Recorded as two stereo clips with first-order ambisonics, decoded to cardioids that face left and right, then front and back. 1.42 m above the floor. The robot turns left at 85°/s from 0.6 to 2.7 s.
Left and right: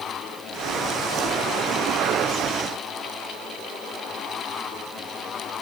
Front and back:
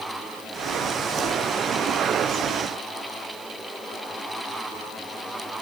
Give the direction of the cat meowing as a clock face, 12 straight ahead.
No cat meowing in this recording.